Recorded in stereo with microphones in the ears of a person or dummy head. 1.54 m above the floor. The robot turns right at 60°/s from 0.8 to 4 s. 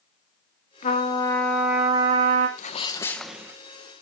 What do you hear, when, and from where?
0.8 s a trumpet: 145° left, 3 m; by 2.5 s 115° right, 3 m
2.6 s a sneeze: 145° left, 1.4 m; by 3.6 s 155° right, 1.4 m